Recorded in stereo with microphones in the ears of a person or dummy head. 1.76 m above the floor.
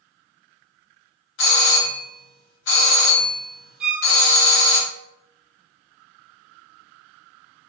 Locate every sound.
1.4 s a doorbell: 65° left (ahead or behind), 1.0 m
3.8 s a violin: 5° right (ahead or behind), 0.6 m